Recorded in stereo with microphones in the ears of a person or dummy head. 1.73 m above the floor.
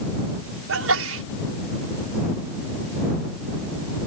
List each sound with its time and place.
0.7 s a sneeze: 85° right